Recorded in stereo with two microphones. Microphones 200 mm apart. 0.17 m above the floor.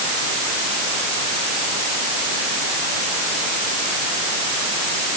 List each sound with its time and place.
Only background noise.